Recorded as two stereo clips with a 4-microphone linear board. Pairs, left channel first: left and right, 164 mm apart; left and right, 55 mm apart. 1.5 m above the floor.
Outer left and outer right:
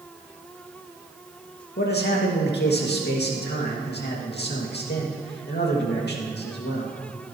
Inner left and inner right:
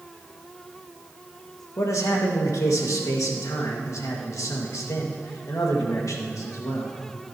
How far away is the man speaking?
About 2.5 m.